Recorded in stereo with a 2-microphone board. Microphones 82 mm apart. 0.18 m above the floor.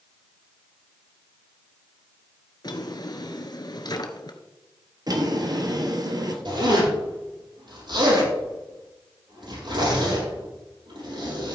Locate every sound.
2.6 s a drawer: 55° left (ahead or behind), 1.1 m
5.1 s a drawer: 55° right (ahead or behind), 1.7 m
6.5 s a zipper: 70° right (ahead or behind), 6.5 m